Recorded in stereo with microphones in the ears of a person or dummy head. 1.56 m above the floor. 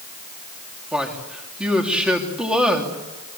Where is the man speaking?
5° right (ahead or behind), 3 m.